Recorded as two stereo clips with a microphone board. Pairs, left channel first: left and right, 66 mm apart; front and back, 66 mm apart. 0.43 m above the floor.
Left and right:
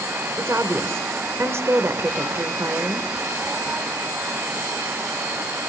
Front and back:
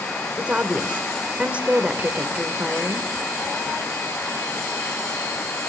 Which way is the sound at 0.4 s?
115° right.